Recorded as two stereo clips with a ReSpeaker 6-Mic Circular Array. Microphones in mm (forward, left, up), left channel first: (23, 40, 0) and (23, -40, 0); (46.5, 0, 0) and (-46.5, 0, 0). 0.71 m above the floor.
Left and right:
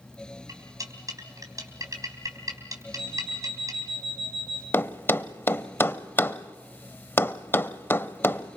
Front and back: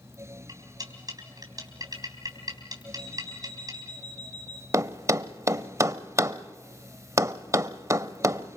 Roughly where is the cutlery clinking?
Behind right.